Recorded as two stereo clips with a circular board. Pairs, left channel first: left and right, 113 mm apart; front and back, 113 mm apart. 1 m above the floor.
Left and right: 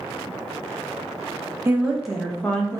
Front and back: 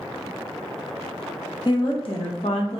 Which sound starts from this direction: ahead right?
A woman speaking, at 1.6 s.